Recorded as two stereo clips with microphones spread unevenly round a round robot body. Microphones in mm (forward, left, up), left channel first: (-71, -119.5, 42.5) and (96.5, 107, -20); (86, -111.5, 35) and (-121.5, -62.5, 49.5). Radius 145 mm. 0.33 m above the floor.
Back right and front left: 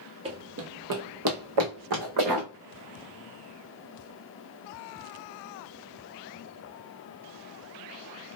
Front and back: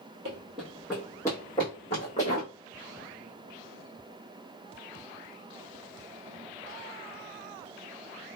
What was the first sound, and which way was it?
Running footsteps, 130° left.